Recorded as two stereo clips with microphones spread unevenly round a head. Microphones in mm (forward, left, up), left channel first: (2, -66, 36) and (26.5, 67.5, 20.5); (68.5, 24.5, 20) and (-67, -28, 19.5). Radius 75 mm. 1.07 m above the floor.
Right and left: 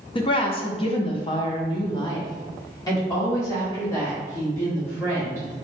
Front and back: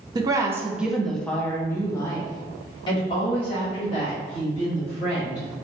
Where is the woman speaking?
125° right, 0.8 m; by 5.5 s 25° right, 2.5 m.